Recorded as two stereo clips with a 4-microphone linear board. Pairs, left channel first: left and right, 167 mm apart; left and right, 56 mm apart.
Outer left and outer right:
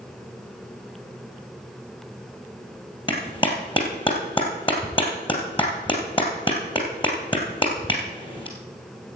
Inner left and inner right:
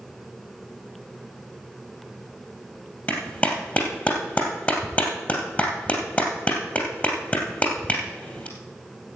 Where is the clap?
30° left (ahead or behind), 2.5 m.